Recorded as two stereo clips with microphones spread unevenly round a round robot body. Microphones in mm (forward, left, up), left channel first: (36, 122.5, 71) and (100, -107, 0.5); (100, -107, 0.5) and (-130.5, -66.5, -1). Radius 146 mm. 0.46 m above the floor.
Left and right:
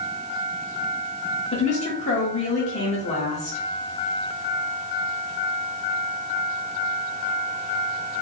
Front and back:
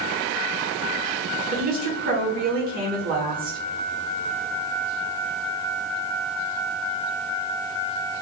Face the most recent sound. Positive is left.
turn(degrees=175)